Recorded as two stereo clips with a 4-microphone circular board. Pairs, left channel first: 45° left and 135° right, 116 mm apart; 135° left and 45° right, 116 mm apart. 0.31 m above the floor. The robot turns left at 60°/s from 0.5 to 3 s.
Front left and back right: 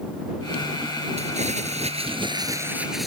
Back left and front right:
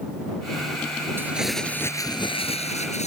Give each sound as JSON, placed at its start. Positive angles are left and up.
{"t": 1.2, "sound": "crumpling", "azimuth_deg": -115}